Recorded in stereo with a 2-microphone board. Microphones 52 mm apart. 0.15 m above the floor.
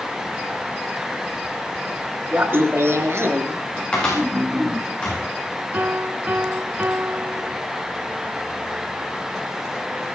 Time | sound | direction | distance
2.3 | laughter | 40° right (ahead or behind) | 2.5 m
3.9 | a cupboard door | 20° left (ahead or behind) | 9.5 m
5.7 | a piano | 35° right (ahead or behind) | 0.6 m